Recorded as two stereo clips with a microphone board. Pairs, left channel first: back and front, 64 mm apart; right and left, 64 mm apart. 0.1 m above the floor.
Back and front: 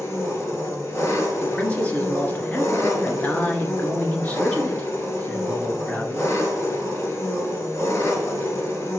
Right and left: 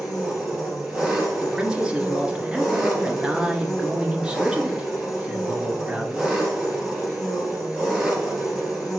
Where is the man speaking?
150° left, 1.3 m.